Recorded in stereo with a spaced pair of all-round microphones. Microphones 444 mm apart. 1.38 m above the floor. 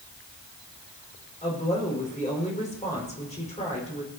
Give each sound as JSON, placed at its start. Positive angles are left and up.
{"t": 1.4, "sound": "a woman speaking", "side_deg": 15, "distance_m": 5.0}